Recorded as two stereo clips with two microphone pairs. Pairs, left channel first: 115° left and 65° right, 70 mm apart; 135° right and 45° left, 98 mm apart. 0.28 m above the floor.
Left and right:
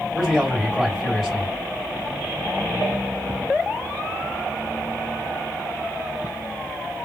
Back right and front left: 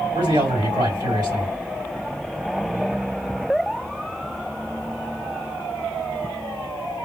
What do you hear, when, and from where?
0.1 s a man speaking: 35° left, 2 m